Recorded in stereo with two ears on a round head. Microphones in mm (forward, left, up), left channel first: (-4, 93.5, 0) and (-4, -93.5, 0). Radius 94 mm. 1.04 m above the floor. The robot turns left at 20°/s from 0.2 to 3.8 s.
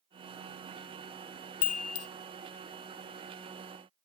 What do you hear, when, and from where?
1.6 s a chime: 75° left (ahead or behind), 0.7 m; by 2.1 s 80° left, 0.7 m